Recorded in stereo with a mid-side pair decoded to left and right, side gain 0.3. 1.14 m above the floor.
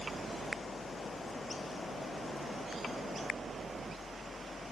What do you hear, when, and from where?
0.0 s a fan: 55° right